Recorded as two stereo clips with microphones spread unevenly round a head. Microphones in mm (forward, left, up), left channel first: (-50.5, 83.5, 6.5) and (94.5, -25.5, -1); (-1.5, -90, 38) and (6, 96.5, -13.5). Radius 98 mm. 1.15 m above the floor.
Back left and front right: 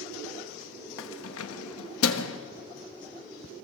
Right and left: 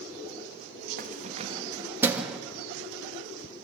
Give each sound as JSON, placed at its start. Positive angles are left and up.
{"t": 1.0, "sound": "keys jangling", "azimuth_deg": 135, "distance_m": 1.2}